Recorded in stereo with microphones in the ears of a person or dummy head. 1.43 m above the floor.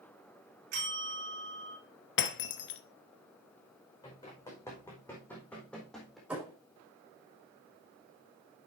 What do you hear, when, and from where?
0.7 s a bell: 55° right (ahead or behind), 5.5 m
2.2 s breaking glass: 55° left (ahead or behind), 1.0 m
4.0 s running footsteps: 20° left (ahead or behind), 4.5 m; by 6.2 s centre (ahead or behind), 4 m
6.3 s a thud: 5° right (ahead or behind), 5 m